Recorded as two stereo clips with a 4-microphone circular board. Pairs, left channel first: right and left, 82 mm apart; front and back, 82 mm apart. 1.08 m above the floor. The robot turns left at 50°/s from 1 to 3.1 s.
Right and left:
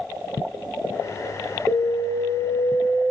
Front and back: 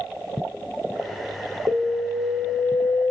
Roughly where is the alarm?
Behind left.